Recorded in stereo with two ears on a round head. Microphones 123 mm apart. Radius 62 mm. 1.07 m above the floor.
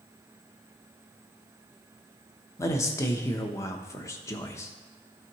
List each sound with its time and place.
2.6 s a man speaking: 20° left (ahead or behind), 0.7 m